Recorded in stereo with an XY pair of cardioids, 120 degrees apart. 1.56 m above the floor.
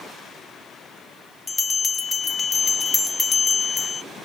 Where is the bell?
25° left, 1.3 m.